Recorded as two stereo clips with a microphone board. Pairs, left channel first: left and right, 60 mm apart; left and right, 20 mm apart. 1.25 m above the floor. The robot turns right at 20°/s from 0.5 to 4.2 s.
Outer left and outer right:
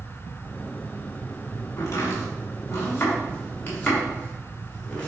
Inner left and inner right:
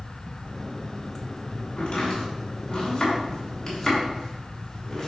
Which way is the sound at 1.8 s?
65° left (ahead or behind).